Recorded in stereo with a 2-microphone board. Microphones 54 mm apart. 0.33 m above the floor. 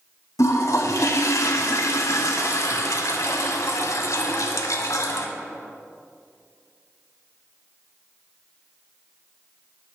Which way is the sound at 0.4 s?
75° left (ahead or behind).